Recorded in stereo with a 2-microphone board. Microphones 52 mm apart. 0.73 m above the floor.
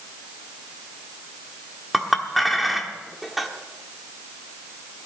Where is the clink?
Centre (ahead or behind), 1.2 m.